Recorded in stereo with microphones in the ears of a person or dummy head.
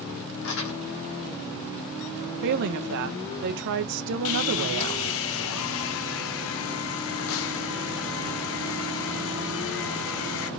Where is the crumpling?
60° left (ahead or behind), 2.5 m.